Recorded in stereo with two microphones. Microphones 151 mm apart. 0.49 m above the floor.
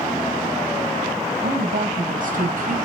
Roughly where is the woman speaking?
Right.